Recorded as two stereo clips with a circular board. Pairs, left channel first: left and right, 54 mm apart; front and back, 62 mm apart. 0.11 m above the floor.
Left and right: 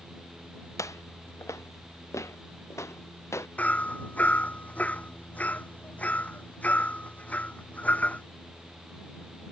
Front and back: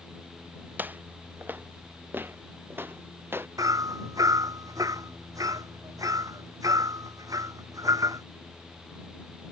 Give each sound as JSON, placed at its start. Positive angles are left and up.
{"t": 0.8, "sound": "footsteps", "azimuth_deg": 115}
{"t": 3.6, "sound": "hammering", "azimuth_deg": 155}